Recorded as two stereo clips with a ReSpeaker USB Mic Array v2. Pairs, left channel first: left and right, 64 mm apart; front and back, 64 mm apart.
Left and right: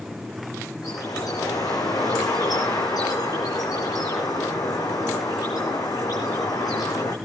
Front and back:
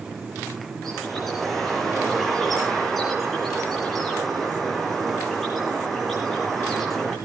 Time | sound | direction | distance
0.8 | a bird | 85° left | 4 m